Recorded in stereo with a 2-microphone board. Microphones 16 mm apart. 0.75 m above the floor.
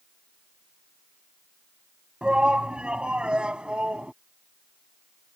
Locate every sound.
2.2 s a shout: 65° right (ahead or behind); by 4.1 s 80° right